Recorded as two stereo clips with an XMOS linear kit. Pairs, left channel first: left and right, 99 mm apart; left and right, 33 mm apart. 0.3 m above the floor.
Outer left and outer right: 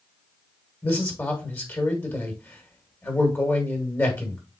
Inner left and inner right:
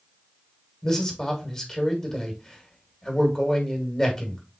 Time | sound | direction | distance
0.8 | a man speaking | 20° left (ahead or behind) | 1.6 m